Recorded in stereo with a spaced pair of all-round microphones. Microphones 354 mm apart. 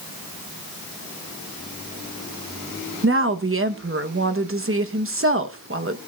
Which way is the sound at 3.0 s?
35° right (ahead or behind).